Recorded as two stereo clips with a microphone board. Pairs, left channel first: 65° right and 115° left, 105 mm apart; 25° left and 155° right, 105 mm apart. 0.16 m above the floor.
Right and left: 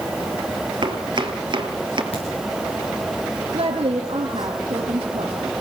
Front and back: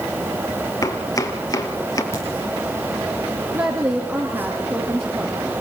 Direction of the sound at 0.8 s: 75° left.